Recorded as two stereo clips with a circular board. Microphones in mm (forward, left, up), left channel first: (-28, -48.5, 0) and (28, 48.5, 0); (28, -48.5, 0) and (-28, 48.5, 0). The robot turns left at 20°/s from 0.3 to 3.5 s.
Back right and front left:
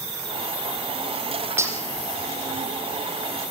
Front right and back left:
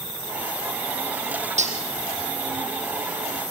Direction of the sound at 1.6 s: 130° left.